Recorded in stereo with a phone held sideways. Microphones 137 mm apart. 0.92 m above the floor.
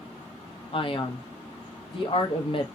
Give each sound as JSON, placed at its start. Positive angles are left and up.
{"t": 0.7, "sound": "a man speaking", "side_deg": 45, "distance_m": 0.7}